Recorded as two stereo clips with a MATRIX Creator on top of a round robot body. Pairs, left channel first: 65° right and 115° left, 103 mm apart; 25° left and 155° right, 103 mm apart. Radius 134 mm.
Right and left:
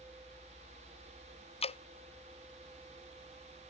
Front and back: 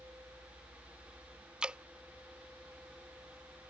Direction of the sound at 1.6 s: 75° right.